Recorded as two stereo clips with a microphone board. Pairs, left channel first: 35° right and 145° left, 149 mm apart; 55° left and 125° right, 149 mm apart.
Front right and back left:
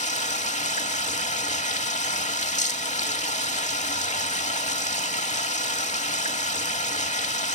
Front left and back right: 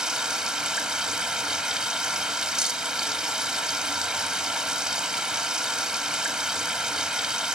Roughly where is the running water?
Ahead right.